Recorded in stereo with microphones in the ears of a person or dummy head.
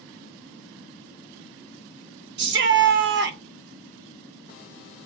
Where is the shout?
55° right (ahead or behind), 0.5 m.